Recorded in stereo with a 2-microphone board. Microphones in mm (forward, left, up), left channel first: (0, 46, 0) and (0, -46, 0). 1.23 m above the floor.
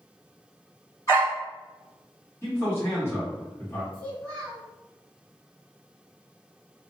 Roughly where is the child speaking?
Centre.